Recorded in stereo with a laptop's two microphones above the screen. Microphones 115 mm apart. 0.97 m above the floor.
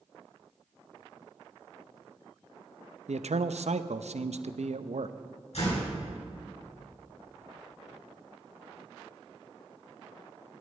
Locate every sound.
3.1 s a man speaking: 75° right (ahead or behind), 0.6 m
5.5 s a door slam: 70° left (ahead or behind), 6.5 m